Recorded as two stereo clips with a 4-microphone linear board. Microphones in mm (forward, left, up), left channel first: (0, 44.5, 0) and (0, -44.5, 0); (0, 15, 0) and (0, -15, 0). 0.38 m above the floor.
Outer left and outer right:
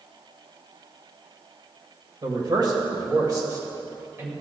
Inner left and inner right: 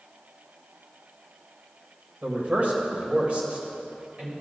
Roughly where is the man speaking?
Right.